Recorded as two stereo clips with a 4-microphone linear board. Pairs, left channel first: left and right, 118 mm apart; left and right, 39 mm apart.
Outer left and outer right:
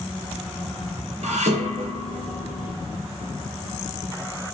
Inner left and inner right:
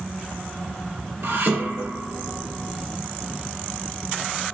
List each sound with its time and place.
1.2 s dishes clattering: 70° right (ahead or behind), 2.5 m